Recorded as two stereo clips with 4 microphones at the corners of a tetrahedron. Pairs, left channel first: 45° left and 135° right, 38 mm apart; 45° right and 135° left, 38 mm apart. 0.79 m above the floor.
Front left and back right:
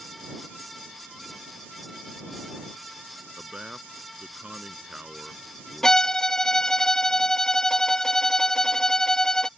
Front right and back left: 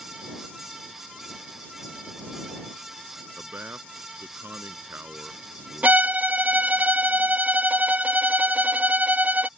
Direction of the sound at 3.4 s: 160° left.